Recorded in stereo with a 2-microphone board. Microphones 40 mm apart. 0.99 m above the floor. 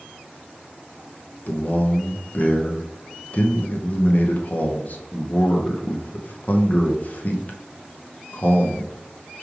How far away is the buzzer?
No buzzer in this recording.